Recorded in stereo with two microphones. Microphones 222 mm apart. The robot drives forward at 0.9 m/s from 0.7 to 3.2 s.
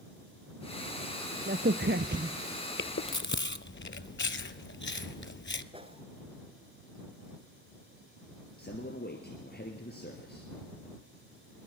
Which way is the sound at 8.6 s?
45° left (ahead or behind).